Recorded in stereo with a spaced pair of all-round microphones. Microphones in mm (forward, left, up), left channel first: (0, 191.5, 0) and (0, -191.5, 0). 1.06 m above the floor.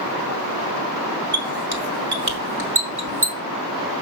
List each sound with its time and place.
1.3 s a squeak: 70° right (ahead or behind), 2.0 m